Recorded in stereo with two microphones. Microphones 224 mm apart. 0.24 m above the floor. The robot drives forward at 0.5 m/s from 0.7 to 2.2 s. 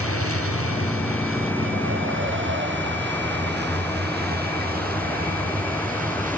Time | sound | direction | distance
0.0 | a vehicle | 90° right | ?